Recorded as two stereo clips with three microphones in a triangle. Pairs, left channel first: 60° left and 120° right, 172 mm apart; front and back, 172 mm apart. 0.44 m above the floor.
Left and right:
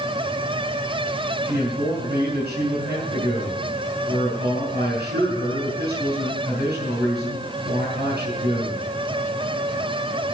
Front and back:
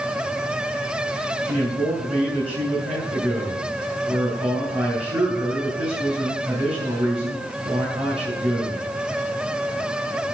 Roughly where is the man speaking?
Behind right.